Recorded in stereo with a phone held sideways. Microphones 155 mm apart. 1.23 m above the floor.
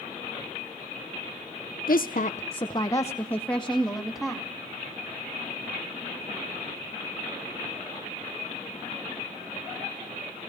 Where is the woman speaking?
65° left (ahead or behind), 0.8 m; by 4.5 s centre (ahead or behind), 2.5 m.